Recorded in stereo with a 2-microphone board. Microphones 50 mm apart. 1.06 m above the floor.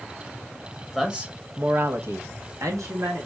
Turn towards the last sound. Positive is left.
turn(degrees=-70)  # may be behind; listen again after turning